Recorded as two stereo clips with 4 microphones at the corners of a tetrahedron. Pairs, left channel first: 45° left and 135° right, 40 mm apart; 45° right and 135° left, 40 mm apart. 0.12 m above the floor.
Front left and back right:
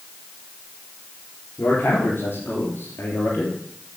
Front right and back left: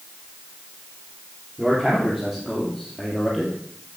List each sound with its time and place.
1.6 s a man speaking: 55° left, 4 m; by 3.6 s 45° left, 3 m